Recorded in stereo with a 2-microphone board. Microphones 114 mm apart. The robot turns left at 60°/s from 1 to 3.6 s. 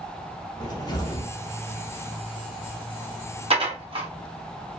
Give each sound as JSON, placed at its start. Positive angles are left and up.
{"t": 0.6, "sound": "a cupboard door", "side_deg": 35, "distance_m": 0.7}
{"t": 3.5, "sound": "dishes clattering", "side_deg": -60, "distance_m": 1.0}